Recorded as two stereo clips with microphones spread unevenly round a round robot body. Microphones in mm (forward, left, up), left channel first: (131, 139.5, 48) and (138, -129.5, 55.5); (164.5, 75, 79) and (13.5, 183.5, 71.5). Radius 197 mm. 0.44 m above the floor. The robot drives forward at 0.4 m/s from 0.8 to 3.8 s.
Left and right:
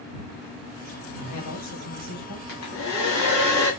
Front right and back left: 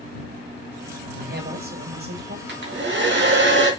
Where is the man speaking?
115° left, 3.5 m; by 2.4 s 120° left, 3.5 m.